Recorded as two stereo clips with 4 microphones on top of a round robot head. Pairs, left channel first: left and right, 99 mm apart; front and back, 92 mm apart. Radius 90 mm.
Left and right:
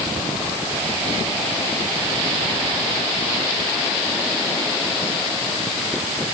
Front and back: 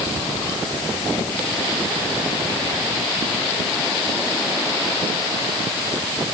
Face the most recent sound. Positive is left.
No sound to turn to.